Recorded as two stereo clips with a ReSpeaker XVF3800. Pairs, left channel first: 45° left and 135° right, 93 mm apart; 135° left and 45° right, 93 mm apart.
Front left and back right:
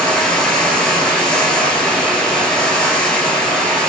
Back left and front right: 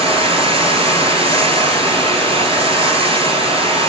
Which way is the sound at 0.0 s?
35° right.